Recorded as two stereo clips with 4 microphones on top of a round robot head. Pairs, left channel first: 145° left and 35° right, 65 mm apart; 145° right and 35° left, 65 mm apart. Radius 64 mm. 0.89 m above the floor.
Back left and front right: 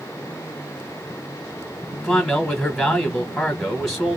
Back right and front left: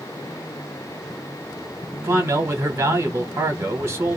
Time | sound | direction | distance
2.0 | a man speaking | 60° left | 0.9 m